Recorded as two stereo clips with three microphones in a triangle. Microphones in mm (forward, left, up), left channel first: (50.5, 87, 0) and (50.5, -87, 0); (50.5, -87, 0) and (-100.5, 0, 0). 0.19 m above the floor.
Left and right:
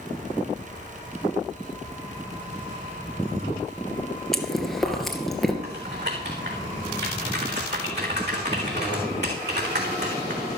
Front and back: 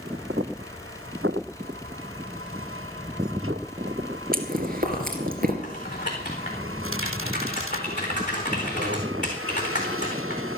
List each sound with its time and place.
4.3 s chewing: straight behind, 2 m
5.6 s typing on a keyboard: 75° right, 4 m